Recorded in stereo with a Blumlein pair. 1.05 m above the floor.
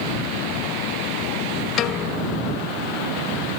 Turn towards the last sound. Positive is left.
turn(degrees=30)